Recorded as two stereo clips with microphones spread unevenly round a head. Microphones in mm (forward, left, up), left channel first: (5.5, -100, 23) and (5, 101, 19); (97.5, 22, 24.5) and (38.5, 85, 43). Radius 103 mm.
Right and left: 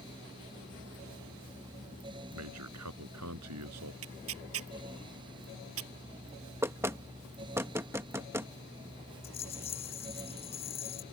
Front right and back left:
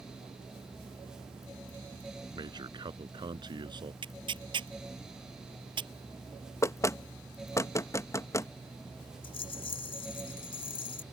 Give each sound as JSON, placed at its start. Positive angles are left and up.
{"t": 2.4, "sound": "a man speaking", "azimuth_deg": 100}
{"t": 4.0, "sound": "tearing paper", "azimuth_deg": 115}
{"t": 6.6, "sound": "knocking", "azimuth_deg": 10}
{"t": 9.2, "sound": "a rattle", "azimuth_deg": -30}